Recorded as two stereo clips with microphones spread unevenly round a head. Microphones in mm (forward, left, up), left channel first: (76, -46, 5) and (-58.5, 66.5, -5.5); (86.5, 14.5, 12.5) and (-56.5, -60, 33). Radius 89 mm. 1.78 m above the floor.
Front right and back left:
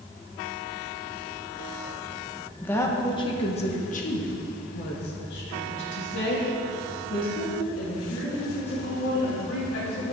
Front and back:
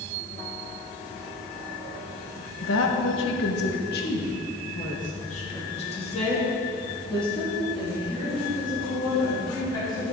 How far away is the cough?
I don't hear a cough.